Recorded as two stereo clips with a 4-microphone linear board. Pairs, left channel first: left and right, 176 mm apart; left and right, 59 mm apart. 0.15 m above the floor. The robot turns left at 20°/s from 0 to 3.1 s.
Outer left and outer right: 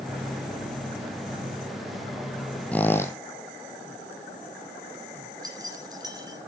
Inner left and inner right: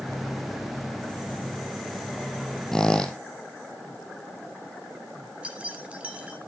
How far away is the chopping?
No chopping in this recording.